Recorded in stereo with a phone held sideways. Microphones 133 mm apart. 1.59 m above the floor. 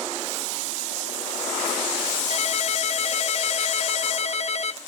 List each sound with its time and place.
2.3 s a ringtone: 55° left (ahead or behind), 1.0 m